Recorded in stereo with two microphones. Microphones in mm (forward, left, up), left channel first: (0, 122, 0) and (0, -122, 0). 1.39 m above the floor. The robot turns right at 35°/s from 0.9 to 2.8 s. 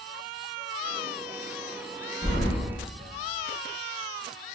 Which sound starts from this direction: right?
Keys jangling, at 2.2 s.